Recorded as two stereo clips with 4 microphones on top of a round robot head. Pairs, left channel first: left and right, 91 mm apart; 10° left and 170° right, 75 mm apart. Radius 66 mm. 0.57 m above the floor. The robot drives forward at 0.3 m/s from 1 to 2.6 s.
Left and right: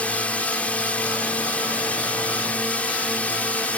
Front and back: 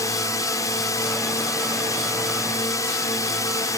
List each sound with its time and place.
0.0 s a drone: 20° left